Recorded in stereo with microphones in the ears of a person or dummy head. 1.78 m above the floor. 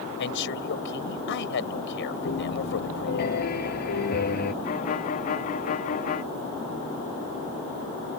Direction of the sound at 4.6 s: 45° left (ahead or behind).